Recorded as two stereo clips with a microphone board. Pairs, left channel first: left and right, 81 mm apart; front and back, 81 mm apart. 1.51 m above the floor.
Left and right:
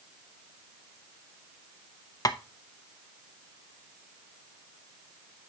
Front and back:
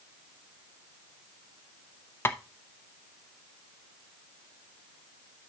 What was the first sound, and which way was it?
Tapping, 55° left.